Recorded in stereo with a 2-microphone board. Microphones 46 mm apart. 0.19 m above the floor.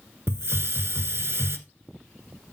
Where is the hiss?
65° right (ahead or behind), 1.1 m.